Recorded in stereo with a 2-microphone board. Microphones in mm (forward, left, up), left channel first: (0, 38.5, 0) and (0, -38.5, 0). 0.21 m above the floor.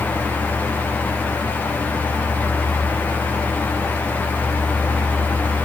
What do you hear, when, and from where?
Only background noise.